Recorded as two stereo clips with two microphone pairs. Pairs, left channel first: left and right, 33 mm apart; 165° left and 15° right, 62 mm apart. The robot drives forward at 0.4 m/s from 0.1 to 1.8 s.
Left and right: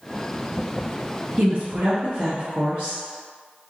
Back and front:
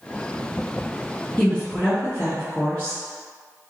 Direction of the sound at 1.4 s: 110° right.